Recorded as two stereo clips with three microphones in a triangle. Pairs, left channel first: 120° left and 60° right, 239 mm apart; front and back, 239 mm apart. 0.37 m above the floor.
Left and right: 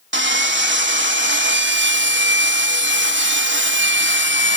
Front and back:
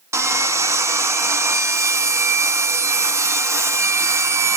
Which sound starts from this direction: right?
Sawing, at 0.1 s.